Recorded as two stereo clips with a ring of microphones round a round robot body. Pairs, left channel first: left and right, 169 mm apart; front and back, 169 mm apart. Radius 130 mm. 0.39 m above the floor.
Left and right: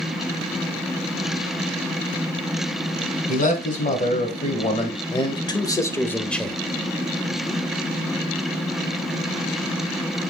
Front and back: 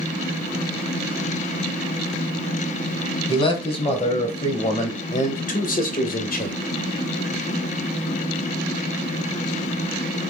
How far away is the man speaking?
About 2.5 m.